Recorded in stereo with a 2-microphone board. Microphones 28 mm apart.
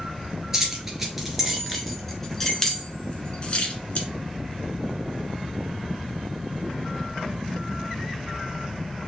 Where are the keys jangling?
15° right (ahead or behind), 1.7 m; by 4.1 s 50° left (ahead or behind), 1.1 m.